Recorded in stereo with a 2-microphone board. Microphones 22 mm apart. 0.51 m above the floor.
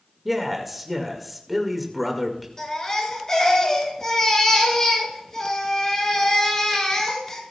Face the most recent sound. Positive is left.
turn(degrees=25)  # may be behind; listen again after turning